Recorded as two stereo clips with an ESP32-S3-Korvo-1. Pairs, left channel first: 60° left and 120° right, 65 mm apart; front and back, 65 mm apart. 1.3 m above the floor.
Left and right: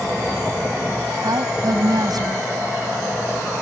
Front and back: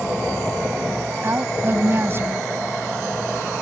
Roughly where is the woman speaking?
Behind right.